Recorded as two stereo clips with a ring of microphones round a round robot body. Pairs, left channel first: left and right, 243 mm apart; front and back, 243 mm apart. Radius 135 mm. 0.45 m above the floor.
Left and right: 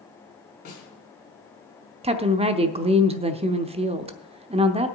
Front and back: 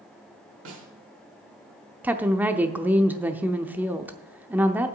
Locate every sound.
0.7 s a snare drum: 150° left, 3 m
2.0 s a woman speaking: 105° right, 0.7 m